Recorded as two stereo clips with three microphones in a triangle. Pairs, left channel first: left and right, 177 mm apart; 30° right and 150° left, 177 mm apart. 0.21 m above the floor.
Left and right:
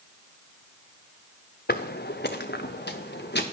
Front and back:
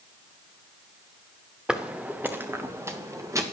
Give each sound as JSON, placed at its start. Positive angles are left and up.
{"t": 1.7, "sound": "footsteps", "azimuth_deg": 65, "distance_m": 0.9}